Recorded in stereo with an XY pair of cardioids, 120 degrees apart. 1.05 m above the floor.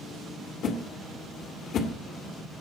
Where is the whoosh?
55° left, 2 m.